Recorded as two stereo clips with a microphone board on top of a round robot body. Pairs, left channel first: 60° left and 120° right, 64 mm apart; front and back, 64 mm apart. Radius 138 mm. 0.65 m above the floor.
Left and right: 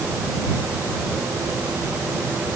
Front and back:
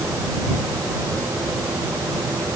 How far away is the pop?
I don't hear a pop.